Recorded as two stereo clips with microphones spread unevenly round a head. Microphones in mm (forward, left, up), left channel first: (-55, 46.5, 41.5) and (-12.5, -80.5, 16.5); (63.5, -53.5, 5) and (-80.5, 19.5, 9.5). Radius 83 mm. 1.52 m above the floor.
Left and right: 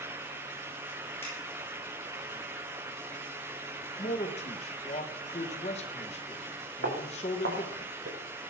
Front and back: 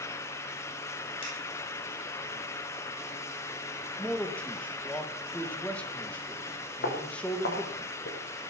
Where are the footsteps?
50° right, 6.5 m.